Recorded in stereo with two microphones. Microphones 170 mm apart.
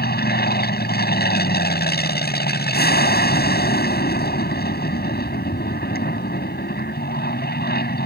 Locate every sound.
0.0 s an aircraft: 70° left (ahead or behind)